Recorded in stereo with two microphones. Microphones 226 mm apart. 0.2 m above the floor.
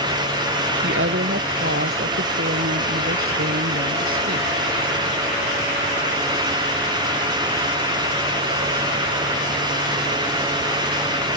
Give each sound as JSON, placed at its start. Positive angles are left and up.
{"t": 0.8, "sound": "a woman speaking", "side_deg": -60}